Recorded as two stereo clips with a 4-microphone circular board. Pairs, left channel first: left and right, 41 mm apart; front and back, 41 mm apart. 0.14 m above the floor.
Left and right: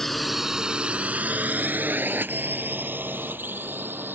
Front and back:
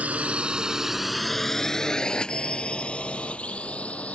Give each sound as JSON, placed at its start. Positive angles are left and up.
{"t": 0.0, "sound": "a drone", "azimuth_deg": 170}